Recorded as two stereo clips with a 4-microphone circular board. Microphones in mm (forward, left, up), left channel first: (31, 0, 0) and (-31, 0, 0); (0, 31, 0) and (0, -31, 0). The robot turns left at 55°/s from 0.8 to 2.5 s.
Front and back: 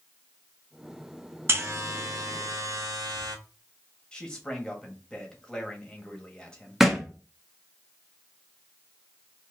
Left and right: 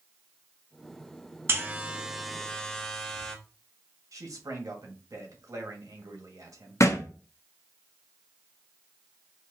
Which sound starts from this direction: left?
A thud, at 6.8 s.